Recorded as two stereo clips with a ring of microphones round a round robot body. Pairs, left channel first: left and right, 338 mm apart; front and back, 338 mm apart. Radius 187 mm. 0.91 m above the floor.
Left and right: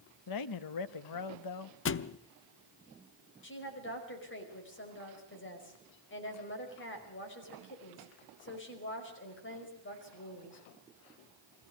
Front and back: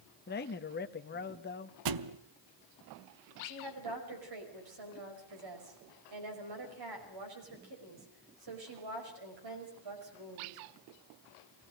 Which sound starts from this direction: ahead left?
A man speaking, at 0.3 s.